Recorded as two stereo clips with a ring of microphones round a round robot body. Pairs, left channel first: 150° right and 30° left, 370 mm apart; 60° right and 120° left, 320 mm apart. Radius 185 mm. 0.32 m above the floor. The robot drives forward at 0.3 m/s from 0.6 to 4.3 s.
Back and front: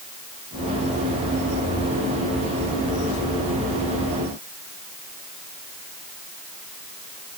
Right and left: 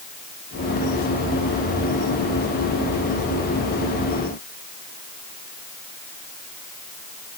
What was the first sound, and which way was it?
Only background noise.